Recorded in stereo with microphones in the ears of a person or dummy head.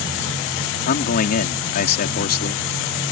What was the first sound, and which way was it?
A man speaking, 55° left (ahead or behind).